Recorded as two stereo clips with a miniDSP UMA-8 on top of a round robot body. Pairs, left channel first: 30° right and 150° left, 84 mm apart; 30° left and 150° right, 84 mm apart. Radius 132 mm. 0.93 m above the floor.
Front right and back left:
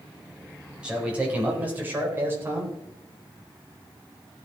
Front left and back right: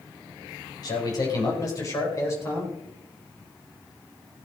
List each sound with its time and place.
0.8 s a man speaking: 70° left, 4.5 m; by 2.7 s 90° left, 4 m